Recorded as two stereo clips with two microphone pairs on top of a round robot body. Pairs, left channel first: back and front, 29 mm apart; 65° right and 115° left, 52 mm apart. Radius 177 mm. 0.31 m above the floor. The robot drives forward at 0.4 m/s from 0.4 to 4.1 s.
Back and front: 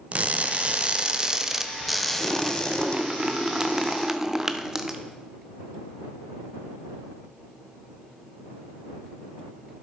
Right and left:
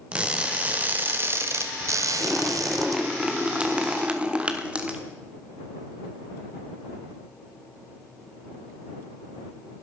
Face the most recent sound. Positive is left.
turn(degrees=60)